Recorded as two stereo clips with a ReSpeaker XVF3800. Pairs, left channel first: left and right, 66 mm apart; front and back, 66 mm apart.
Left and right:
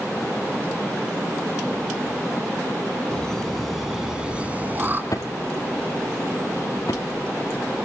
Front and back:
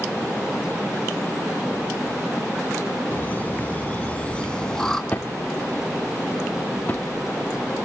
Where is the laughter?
25° left, 2.0 m; by 5.0 s 75° right, 1.9 m.